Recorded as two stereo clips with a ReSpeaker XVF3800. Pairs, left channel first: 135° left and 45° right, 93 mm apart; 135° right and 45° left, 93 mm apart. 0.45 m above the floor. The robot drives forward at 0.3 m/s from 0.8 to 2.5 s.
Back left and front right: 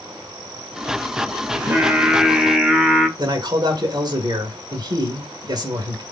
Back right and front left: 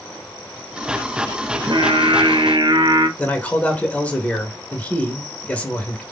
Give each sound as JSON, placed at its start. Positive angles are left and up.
{"t": 1.5, "sound": "singing", "azimuth_deg": 25, "distance_m": 0.8}
{"t": 3.2, "sound": "a man speaking", "azimuth_deg": -65, "distance_m": 1.3}